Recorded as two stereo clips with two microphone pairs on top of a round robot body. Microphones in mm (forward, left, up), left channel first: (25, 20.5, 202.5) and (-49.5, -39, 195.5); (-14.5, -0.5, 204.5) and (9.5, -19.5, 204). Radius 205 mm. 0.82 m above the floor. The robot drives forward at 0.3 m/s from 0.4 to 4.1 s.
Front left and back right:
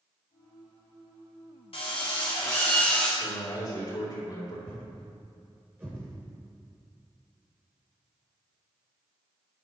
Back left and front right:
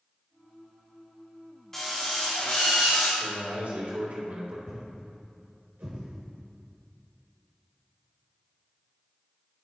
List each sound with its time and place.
1.7 s a drill: 60° left, 0.5 m; by 3.1 s 120° left, 0.5 m
3.2 s a man speaking: 5° right, 3.5 m
4.7 s a thud: 60° right, 0.6 m